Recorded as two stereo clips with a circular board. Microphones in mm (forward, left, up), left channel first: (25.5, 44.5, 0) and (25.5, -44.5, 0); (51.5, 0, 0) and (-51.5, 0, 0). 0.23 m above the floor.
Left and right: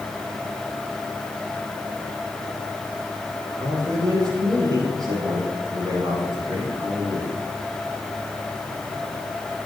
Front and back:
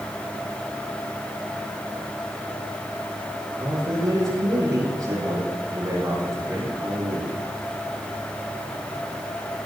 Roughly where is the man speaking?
Behind right.